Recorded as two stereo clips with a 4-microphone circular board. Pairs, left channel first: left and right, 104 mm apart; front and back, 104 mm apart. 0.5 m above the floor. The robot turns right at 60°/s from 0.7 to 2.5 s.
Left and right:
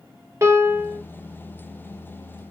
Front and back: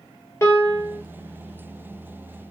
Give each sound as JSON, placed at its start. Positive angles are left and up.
{"t": 0.4, "sound": "a piano", "azimuth_deg": -45, "distance_m": 0.9}